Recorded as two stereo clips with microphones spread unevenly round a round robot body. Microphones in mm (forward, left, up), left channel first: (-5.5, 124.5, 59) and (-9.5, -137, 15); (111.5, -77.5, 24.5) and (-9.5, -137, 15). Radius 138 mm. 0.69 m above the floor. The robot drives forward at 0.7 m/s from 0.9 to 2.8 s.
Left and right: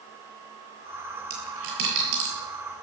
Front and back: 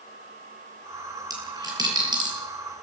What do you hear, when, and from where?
1.3 s a dropped coin: 90° right, 8.5 m; by 2.3 s 95° right, 8.5 m